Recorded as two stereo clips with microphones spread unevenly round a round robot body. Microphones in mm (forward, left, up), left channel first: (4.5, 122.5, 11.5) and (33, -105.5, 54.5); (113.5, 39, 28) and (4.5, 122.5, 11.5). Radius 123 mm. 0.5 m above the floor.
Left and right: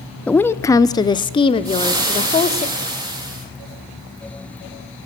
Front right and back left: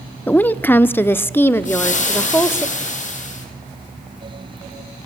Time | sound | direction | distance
0.3 | a woman speaking | 45° left | 0.8 m
1.6 | frying | 10° right | 6 m